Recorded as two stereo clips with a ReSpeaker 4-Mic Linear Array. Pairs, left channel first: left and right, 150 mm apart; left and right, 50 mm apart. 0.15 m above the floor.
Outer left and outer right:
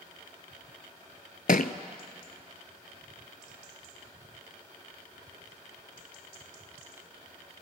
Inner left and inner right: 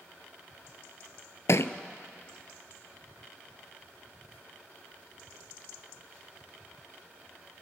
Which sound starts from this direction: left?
A thud, at 1.5 s.